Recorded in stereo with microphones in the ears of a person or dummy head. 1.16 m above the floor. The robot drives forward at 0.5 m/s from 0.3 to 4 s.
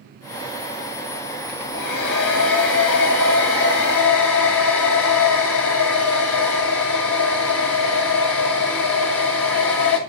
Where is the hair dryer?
60° left (ahead or behind), 3.5 m; by 10.0 s 75° left (ahead or behind), 3 m.